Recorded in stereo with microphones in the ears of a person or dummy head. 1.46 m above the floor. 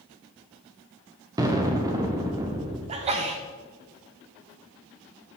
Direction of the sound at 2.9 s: 30° right (ahead or behind).